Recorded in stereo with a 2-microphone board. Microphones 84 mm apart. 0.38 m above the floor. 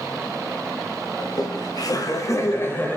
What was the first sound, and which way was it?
Laughter, 55° left (ahead or behind).